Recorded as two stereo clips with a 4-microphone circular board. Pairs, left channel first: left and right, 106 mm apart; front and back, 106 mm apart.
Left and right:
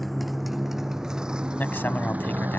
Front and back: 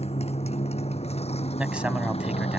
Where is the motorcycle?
Straight ahead; by 2.6 s 15° right.